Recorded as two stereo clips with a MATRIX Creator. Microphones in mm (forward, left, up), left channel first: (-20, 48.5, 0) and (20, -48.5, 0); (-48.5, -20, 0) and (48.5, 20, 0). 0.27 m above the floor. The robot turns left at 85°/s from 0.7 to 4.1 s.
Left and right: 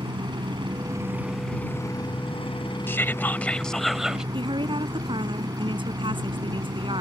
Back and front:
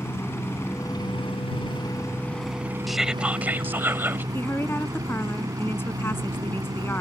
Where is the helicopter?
100° right; by 7.0 s 25° right.